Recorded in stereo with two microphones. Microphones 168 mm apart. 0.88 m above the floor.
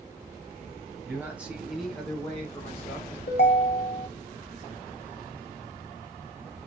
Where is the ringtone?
75° left (ahead or behind), 0.6 m.